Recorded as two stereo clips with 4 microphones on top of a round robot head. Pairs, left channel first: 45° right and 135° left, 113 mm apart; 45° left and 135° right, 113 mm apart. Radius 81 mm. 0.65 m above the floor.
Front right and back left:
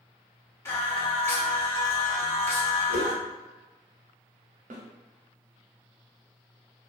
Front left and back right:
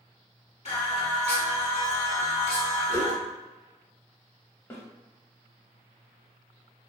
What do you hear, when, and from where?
0.7 s singing: 20° left, 1.4 m
2.9 s a whoosh: 20° left, 1.7 m
4.7 s a snare drum: 115° left, 0.6 m